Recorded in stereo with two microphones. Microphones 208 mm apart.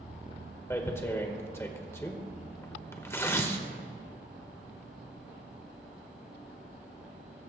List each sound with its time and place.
0.7 s tearing paper: 10° left (ahead or behind), 1.2 m